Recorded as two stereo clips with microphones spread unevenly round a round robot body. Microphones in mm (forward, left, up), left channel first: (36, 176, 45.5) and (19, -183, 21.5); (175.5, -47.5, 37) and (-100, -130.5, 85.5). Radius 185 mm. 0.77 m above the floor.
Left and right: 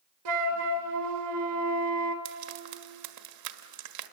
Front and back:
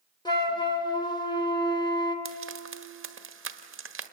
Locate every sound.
0.2 s a flute: 60° right, 2.5 m
2.2 s frying: 115° right, 1.5 m